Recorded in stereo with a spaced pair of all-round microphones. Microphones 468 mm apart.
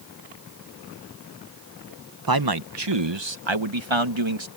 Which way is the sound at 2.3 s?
45° right (ahead or behind).